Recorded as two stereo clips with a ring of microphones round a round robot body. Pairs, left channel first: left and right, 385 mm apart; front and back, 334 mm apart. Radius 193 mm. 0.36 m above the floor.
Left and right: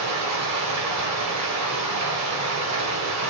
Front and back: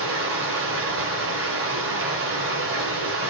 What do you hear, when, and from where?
0.0 s running water: 130° right, 1.6 m